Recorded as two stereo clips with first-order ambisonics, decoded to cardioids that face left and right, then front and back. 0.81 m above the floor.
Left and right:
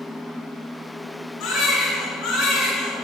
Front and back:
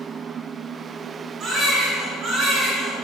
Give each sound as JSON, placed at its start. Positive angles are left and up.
{"t": 1.4, "sound": "a baby crying", "azimuth_deg": 125, "distance_m": 2.5}